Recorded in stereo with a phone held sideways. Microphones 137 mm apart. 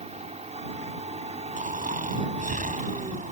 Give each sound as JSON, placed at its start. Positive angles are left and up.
{"t": 0.0, "sound": "a machine running", "side_deg": -55}
{"t": 1.6, "sound": "snoring", "side_deg": -75}